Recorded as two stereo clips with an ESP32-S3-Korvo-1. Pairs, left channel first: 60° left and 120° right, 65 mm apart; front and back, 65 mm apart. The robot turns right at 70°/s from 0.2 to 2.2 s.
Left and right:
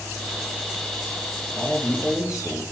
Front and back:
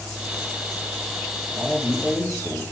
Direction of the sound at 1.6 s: 125° left.